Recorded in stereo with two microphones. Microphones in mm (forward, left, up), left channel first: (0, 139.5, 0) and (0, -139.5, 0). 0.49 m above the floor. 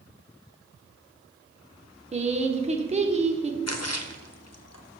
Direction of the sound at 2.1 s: 25° right (ahead or behind).